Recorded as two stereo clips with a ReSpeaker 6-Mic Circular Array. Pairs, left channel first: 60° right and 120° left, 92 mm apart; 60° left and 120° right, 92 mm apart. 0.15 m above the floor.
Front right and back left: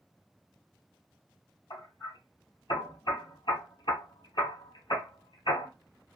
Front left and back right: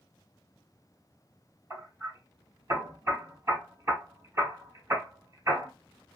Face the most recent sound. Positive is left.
turn(degrees=-65)